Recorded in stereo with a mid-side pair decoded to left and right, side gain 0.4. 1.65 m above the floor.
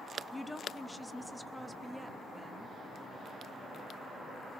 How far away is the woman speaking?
About 1.5 m.